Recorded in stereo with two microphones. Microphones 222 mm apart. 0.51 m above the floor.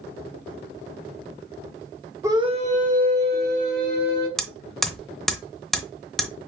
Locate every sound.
2.2 s a scream: 10° right (ahead or behind), 0.7 m; by 4.3 s 50° right (ahead or behind), 2.5 m
4.4 s hammering: centre (ahead or behind), 0.7 m